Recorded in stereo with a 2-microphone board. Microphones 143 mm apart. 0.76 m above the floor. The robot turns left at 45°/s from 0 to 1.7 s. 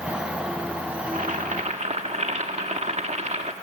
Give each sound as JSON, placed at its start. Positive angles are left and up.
{"t": 1.1, "sound": "boiling", "side_deg": -65, "distance_m": 1.4}